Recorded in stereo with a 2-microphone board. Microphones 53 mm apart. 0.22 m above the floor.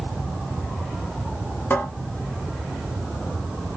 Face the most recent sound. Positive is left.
turn(degrees=35)  # may be behind; listen again after turning